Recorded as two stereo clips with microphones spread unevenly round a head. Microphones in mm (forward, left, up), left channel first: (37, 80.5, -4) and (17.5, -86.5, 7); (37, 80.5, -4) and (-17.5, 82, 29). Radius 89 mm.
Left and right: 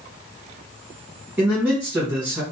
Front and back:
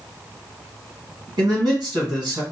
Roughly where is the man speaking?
Behind.